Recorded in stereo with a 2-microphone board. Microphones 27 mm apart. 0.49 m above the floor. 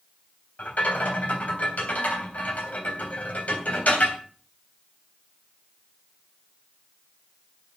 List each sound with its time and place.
0.6 s a rattle: 70° left (ahead or behind), 3.5 m